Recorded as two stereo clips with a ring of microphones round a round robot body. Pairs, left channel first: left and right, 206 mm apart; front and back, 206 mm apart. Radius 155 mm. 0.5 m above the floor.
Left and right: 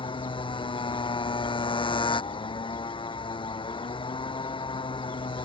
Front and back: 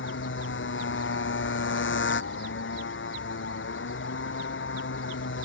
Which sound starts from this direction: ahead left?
A motorcycle, at 0.0 s.